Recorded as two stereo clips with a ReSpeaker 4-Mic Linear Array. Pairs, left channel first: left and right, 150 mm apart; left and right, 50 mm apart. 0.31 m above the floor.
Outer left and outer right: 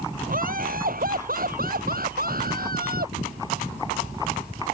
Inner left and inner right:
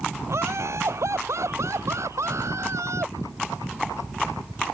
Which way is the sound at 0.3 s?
70° right (ahead or behind).